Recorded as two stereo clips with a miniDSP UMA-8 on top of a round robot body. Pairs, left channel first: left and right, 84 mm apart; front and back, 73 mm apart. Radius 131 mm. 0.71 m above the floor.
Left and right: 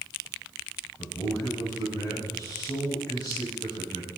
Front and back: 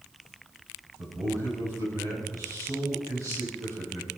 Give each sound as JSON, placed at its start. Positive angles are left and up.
{"t": 1.0, "sound": "a man speaking", "azimuth_deg": 135, "distance_m": 7.0}